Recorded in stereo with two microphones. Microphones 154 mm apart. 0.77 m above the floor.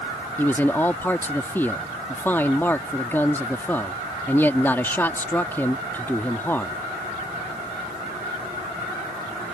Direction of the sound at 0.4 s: 15° left (ahead or behind).